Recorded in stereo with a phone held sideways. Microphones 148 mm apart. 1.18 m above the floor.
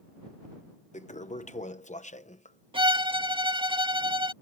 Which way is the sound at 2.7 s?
35° right (ahead or behind).